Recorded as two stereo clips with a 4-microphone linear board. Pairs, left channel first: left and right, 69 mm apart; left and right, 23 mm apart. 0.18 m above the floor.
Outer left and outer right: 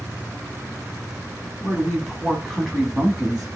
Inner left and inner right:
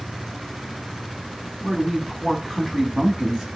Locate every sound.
1.6 s a woman speaking: 5° left (ahead or behind), 1.0 m; by 3.5 s centre (ahead or behind), 1.3 m